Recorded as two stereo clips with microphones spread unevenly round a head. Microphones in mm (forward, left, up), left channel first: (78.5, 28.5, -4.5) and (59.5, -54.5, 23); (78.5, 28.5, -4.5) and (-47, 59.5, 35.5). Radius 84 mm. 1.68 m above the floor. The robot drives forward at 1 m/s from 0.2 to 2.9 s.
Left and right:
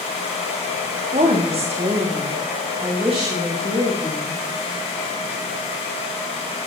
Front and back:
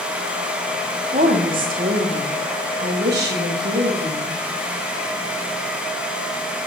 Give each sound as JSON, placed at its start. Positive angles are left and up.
{"t": 1.1, "sound": "a woman speaking", "azimuth_deg": -140, "distance_m": 1.5}